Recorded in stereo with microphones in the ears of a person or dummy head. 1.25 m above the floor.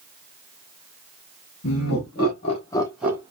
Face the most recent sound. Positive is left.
turn(degrees=-20)  # may be behind; listen again after turning